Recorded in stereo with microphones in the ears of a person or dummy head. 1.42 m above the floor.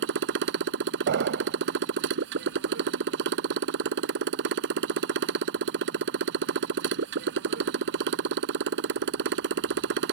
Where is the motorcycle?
65° right (ahead or behind).